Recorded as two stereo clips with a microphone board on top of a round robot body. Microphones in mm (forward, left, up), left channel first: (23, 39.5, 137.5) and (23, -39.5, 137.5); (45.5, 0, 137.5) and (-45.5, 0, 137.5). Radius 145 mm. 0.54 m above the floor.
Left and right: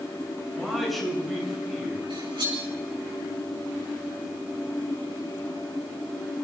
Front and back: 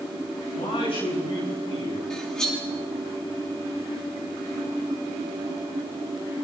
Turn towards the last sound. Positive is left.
turn(degrees=-80)